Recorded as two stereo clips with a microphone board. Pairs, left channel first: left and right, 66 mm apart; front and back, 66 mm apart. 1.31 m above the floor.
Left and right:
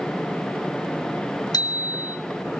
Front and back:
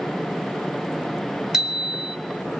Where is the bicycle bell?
100° left, 3.5 m.